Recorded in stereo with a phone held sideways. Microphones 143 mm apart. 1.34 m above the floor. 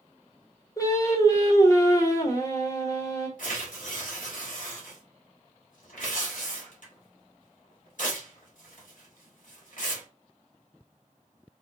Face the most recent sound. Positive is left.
turn(degrees=70)  # may be behind; listen again after turning